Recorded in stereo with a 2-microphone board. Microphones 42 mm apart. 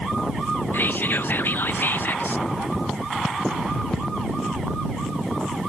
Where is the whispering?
55° left (ahead or behind).